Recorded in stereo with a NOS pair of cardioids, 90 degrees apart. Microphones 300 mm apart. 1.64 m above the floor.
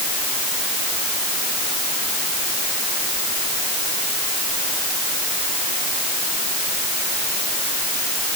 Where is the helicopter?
I don't hear a helicopter.